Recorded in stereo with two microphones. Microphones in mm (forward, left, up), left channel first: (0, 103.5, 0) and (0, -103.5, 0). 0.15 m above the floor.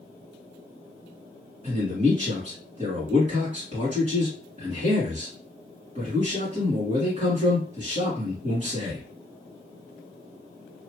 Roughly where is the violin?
No violin in this recording.